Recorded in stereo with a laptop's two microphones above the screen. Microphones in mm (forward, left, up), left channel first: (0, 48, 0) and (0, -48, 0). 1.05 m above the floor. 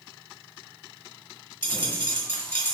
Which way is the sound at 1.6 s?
15° left (ahead or behind).